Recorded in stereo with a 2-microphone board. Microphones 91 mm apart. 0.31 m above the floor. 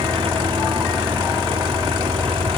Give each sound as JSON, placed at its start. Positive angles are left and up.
{"t": 0.0, "sound": "an engine running", "side_deg": -85}